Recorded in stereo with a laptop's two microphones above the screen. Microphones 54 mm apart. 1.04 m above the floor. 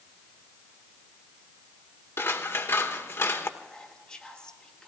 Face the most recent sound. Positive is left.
turn(degrees=15)  # may be behind; listen again after turning